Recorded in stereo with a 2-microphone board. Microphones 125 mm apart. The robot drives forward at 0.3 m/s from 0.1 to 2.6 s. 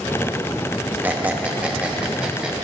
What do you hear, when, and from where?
1.0 s a squeak: 15° right (ahead or behind), 0.6 m; by 2.5 s 10° right (ahead or behind), 1.0 m